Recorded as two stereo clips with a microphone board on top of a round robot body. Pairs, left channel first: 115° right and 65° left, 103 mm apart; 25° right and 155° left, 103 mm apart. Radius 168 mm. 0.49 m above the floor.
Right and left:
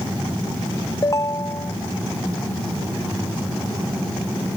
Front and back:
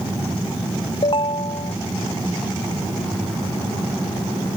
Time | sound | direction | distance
1.0 | a ringtone | 55° right | ?